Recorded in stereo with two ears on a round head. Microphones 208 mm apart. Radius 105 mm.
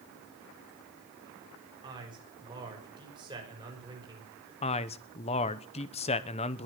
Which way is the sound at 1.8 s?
20° right (ahead or behind).